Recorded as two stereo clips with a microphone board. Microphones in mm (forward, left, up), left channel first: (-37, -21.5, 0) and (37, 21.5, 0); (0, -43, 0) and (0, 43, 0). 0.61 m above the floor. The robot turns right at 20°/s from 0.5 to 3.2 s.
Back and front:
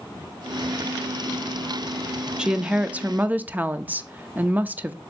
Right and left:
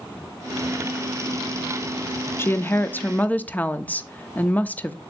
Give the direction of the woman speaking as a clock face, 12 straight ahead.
2 o'clock.